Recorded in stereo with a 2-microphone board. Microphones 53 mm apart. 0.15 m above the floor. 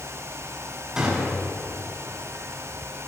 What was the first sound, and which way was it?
A gunshot, 10° right (ahead or behind).